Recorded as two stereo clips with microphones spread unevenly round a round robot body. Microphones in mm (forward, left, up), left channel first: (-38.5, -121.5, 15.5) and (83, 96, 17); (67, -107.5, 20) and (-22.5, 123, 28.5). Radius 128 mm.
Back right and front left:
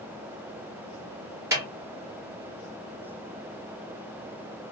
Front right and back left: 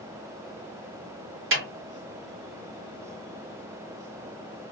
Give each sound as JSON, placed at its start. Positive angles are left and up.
{"t": 1.5, "sound": "a snare drum", "azimuth_deg": 140, "distance_m": 1.6}